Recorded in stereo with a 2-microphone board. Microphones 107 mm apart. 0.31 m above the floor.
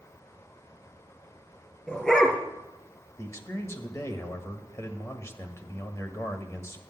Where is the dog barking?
10° left (ahead or behind), 2.5 m.